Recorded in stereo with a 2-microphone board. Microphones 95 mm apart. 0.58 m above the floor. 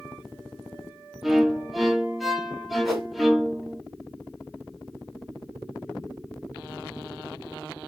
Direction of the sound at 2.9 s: Centre (ahead or behind).